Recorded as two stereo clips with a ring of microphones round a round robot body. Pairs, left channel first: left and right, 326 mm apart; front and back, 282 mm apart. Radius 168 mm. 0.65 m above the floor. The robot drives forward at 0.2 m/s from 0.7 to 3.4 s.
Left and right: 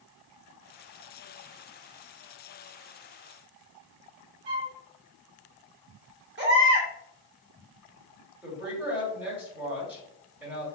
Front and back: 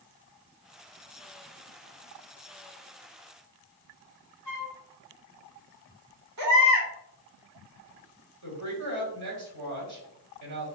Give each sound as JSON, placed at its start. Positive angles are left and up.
{"t": 4.5, "sound": "a flute", "azimuth_deg": -95, "distance_m": 1.5}
{"t": 6.4, "sound": "a baby crying", "azimuth_deg": -145, "distance_m": 2.0}
{"t": 8.4, "sound": "a woman speaking", "azimuth_deg": -175, "distance_m": 2.5}